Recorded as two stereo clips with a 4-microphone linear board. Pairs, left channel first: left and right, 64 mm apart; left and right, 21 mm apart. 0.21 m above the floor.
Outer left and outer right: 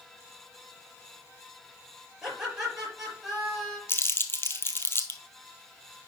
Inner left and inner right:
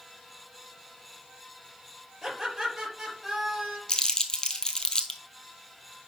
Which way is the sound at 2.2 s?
10° right (ahead or behind).